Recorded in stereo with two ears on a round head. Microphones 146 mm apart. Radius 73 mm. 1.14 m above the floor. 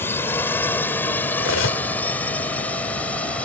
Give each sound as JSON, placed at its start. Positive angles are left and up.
{"t": 0.0, "sound": "a drone", "side_deg": 10}
{"t": 1.4, "sound": "cutlery clinking", "side_deg": 85}